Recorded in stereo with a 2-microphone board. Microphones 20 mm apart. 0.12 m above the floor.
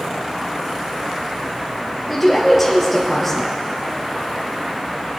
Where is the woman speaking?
Centre (ahead or behind), 2.5 m.